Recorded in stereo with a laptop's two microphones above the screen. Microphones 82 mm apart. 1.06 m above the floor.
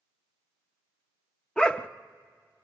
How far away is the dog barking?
About 0.6 m.